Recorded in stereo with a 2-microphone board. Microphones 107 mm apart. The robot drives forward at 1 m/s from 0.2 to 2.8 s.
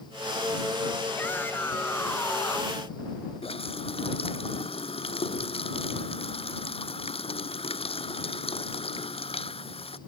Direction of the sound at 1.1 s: 20° left (ahead or behind).